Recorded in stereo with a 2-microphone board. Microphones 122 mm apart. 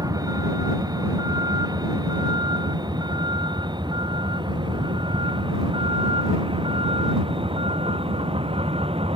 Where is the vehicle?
30° right (ahead or behind); by 9.2 s 50° right (ahead or behind).